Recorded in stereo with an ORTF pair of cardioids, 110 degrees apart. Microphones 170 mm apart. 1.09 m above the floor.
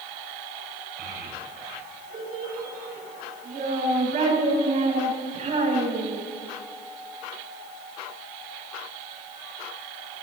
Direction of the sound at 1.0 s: 65° right.